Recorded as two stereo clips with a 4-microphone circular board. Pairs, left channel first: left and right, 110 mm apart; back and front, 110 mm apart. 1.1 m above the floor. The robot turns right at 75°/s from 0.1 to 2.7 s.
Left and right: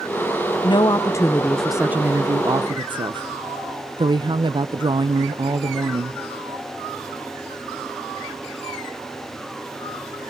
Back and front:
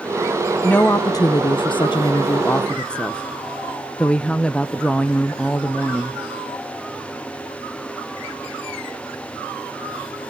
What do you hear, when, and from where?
0.6 s a woman speaking: 105° left, 0.5 m; by 6.2 s 100° right, 0.5 m